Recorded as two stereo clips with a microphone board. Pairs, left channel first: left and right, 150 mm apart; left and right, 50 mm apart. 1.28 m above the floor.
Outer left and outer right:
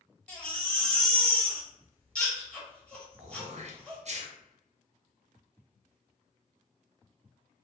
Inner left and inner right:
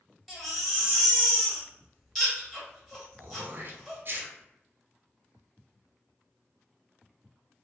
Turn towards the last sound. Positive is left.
turn(degrees=-50)  # may be behind; listen again after turning